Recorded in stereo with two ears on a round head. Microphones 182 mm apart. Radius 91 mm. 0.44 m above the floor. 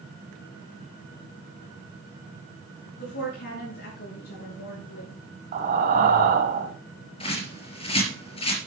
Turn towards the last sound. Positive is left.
turn(degrees=30)  # may be behind; listen again after turning